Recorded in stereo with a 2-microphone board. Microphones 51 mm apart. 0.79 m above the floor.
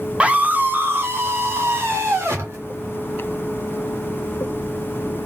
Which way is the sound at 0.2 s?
20° right (ahead or behind).